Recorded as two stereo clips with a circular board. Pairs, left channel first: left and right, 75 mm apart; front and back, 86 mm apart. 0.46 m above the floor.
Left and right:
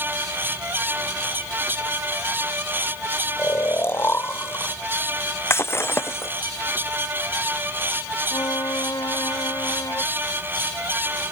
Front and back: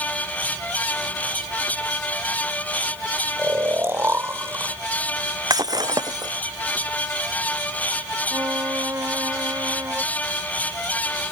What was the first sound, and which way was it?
Snoring, 130° left.